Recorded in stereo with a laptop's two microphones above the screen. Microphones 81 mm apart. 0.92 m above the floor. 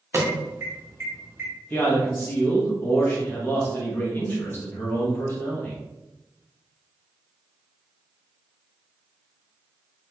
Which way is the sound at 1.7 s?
25° left (ahead or behind).